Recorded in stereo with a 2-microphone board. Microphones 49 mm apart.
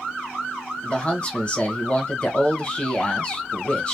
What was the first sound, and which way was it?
A man speaking, 25° left (ahead or behind).